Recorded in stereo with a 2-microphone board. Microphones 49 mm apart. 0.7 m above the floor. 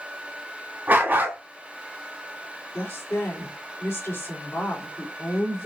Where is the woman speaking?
60° left (ahead or behind), 2 m.